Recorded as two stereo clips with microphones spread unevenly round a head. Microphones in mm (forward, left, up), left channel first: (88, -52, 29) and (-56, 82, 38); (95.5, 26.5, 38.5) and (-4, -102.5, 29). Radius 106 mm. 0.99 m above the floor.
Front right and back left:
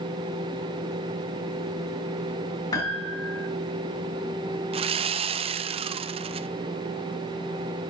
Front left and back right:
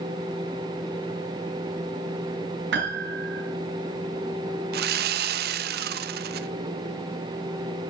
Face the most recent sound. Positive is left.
turn(degrees=-160)